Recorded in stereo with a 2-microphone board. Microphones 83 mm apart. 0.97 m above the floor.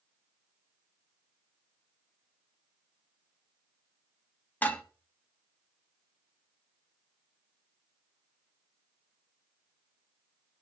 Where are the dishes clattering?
20° left (ahead or behind), 0.7 m.